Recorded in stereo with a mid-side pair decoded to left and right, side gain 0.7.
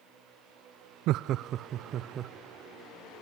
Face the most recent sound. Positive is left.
turn(degrees=-40)